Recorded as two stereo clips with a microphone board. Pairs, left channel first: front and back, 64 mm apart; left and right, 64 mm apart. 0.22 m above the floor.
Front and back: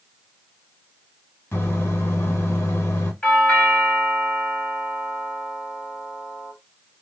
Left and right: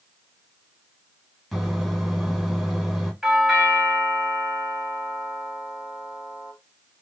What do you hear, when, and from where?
1.5 s a microwave: straight ahead, 1.2 m
3.2 s a doorbell: 5° right, 1.4 m